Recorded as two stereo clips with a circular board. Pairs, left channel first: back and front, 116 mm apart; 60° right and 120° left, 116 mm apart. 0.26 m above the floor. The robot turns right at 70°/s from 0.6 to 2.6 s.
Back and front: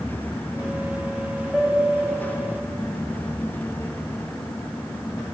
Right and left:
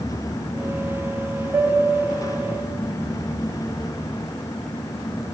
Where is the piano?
65° left, 1.2 m; by 2.6 s 140° left, 1.2 m.